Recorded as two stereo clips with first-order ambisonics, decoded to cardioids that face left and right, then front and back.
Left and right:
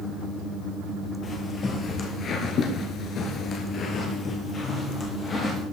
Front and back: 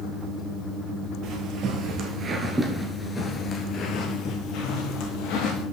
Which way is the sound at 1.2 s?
155° left.